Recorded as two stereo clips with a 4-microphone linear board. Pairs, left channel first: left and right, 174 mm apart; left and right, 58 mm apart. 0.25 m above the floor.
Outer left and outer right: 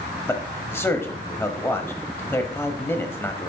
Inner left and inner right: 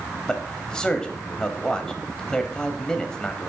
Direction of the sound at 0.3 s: 15° left (ahead or behind).